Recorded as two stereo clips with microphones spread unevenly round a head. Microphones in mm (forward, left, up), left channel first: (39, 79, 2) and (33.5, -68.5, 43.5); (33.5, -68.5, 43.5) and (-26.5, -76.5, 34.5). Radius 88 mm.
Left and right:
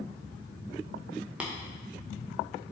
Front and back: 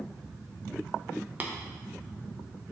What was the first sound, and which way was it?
Tapping, 120° right.